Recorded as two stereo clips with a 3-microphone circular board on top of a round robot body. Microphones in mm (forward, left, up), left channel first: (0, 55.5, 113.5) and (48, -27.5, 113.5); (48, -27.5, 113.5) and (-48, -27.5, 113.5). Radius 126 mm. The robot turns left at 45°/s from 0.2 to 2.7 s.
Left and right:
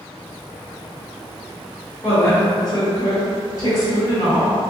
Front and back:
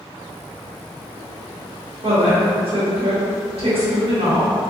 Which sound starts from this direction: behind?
A woman speaking, at 2.0 s.